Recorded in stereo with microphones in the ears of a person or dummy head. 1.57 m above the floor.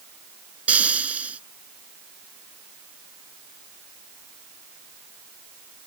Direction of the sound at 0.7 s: 5° right (ahead or behind).